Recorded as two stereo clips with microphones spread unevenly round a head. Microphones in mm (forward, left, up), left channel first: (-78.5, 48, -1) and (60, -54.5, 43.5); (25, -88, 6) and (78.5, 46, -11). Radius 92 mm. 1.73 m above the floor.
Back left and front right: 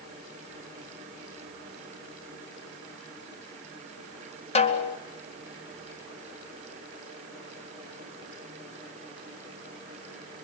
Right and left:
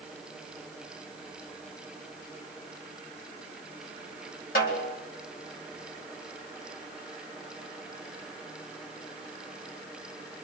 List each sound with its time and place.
4.5 s a snare drum: 160° right, 2.5 m